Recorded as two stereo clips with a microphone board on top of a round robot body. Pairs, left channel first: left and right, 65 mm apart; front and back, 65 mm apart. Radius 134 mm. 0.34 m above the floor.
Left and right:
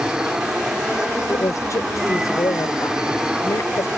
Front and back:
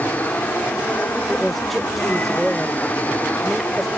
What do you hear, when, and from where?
0.0 s an aircraft: 25° right
1.3 s a woman speaking: 90° left